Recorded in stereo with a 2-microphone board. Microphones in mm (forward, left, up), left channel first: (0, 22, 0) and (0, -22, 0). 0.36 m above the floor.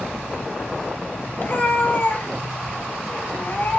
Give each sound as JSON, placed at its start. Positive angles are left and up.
{"t": 1.4, "sound": "a cat meowing", "side_deg": 45, "distance_m": 0.8}